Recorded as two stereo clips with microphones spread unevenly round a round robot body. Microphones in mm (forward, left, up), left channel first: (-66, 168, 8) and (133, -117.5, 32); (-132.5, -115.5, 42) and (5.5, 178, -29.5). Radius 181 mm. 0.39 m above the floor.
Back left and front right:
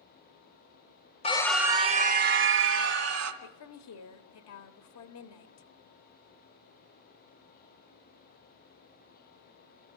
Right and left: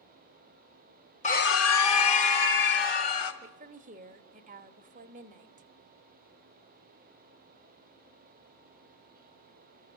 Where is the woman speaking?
115° left, 1.3 m.